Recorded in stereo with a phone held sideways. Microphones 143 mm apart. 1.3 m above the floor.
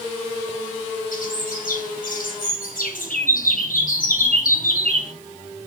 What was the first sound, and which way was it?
A bird, 85° left.